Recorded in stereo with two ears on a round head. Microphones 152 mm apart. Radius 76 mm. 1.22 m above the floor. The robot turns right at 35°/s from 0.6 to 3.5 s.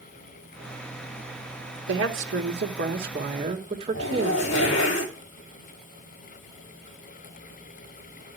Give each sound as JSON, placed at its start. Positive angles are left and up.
{"t": 1.9, "sound": "a woman speaking", "azimuth_deg": -95, "distance_m": 2.5}
{"t": 3.9, "sound": "a zipper", "side_deg": 80, "distance_m": 2.5}